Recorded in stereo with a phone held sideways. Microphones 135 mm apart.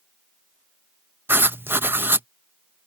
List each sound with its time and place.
1.3 s writing: 15° right (ahead or behind)